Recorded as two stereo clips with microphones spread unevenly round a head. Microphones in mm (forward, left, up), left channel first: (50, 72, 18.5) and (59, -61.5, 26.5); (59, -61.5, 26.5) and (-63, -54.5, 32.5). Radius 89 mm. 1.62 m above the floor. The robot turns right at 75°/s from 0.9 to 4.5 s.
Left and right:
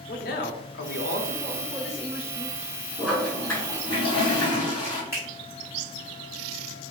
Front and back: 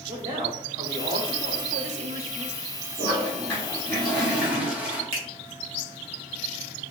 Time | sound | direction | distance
0.1 | a man speaking | 115° left | 0.5 m
3.0 | a toilet flushing | 5° left | 1.3 m
5.1 | a finger snap | 155° right | 1.1 m